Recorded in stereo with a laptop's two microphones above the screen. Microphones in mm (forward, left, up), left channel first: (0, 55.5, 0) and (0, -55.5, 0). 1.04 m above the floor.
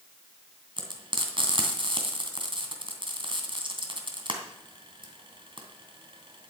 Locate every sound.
0.8 s frying: 50° right (ahead or behind), 2.5 m